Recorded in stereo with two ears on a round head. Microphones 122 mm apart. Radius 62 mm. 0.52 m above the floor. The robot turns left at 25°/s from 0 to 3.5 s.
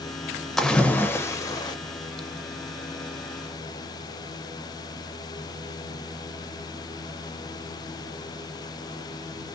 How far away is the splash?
About 0.5 m.